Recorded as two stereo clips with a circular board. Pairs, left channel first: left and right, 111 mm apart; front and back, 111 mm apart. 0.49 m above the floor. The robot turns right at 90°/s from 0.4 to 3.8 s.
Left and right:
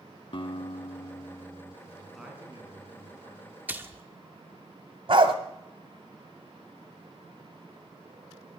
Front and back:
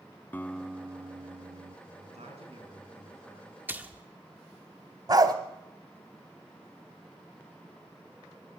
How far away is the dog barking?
About 1.1 m.